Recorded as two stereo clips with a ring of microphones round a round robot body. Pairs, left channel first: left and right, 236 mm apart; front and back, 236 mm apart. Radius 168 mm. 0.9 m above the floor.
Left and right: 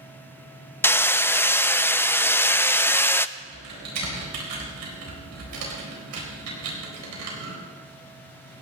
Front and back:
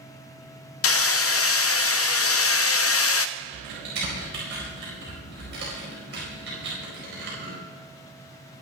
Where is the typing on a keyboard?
120° right, 4 m.